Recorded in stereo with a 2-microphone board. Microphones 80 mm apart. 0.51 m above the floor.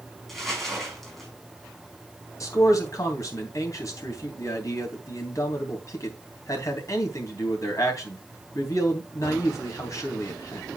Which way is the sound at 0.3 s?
5° left (ahead or behind).